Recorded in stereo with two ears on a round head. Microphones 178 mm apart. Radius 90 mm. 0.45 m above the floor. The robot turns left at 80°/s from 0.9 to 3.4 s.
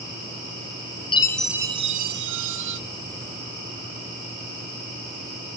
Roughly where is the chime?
Ahead left.